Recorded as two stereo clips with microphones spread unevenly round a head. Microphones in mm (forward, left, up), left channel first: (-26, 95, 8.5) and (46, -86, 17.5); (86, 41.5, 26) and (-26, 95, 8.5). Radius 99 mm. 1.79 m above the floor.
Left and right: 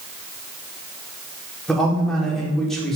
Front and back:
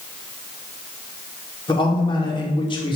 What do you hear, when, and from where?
1.7 s a man speaking: 25° left, 4.5 m